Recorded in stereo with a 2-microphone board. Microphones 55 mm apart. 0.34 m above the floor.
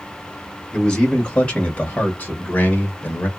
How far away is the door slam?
No door slam in this recording.